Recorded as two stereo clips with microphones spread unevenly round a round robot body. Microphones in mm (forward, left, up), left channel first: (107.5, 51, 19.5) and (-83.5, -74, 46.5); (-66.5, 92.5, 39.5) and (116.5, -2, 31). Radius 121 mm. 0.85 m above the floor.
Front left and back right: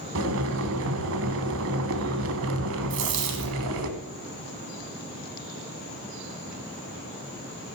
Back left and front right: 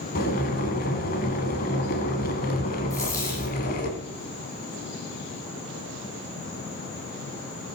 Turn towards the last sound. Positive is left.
turn(degrees=-130)